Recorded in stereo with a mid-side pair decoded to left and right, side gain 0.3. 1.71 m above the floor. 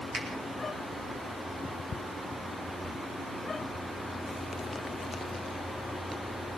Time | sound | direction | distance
0.1 | a finger snap | 65° right | 10 m
2.8 | whispering | 15° right | 4 m